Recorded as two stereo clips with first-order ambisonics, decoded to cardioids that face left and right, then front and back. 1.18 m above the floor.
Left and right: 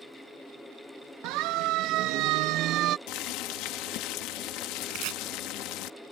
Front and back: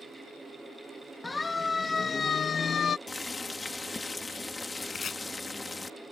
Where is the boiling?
75° left.